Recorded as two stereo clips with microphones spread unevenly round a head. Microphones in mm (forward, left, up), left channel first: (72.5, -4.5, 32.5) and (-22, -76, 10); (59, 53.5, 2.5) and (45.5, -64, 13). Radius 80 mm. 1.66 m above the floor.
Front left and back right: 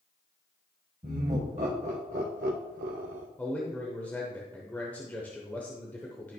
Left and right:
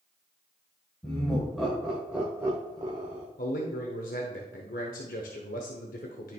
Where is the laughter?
165° left, 1.5 m; by 3.3 s 145° right, 0.8 m.